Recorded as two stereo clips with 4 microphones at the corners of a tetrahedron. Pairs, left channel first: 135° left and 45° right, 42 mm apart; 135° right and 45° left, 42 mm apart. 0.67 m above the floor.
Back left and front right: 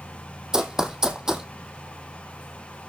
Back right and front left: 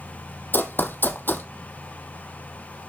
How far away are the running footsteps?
About 1.1 m.